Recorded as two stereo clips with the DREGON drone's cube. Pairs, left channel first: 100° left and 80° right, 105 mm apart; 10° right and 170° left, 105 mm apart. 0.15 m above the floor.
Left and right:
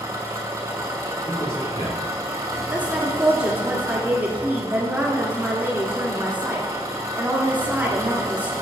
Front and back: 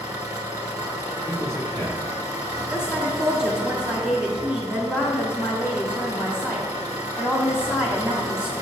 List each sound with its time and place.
0.0 s an engine running: 135° right, 1.0 m
1.2 s a man speaking: 110° left, 2 m
2.7 s a woman speaking: 125° right, 1.3 m